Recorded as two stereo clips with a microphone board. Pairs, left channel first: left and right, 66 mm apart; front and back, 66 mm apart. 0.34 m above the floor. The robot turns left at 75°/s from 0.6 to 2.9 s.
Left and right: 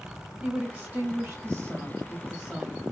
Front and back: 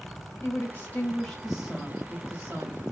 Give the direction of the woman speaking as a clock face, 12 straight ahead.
1 o'clock.